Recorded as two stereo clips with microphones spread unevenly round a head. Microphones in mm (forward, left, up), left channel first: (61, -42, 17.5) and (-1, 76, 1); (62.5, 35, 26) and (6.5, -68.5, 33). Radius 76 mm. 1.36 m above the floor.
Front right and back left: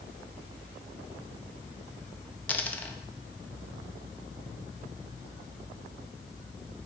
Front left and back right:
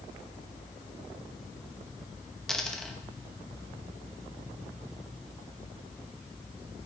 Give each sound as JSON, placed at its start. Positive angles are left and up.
{"t": 2.5, "sound": "a dropped coin", "azimuth_deg": -25, "distance_m": 0.6}